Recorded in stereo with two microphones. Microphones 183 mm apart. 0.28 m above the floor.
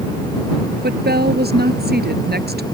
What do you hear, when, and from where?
0.8 s a woman speaking: 60° right (ahead or behind)